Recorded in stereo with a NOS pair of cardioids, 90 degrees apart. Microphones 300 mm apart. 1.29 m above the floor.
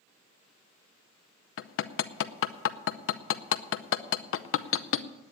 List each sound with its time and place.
1.6 s hammering: 45° left, 0.7 m